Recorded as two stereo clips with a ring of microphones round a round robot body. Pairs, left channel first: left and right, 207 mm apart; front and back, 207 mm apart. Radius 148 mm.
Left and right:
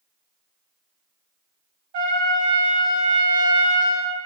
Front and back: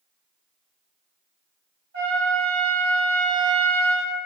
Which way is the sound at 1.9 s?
120° right.